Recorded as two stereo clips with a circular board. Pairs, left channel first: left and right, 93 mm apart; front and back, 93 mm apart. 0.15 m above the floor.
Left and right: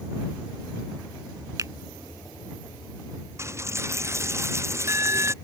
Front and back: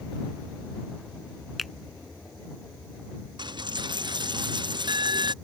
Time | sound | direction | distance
1.6 | a finger snap | 90° right | ?
3.4 | a dropped coin | 150° right | ?